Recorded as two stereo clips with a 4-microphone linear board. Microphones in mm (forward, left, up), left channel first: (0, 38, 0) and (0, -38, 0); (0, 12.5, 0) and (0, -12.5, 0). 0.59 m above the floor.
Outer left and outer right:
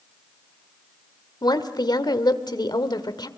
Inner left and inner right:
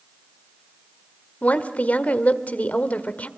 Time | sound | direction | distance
1.4 | a woman speaking | 65° left (ahead or behind) | 1.7 m